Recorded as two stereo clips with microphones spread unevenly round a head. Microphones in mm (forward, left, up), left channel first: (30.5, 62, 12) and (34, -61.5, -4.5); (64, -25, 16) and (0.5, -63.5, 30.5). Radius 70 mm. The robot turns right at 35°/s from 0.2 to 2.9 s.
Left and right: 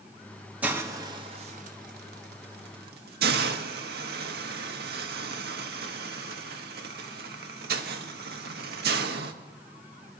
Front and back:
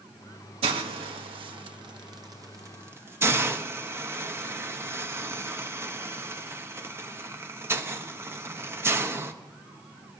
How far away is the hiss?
About 0.9 m.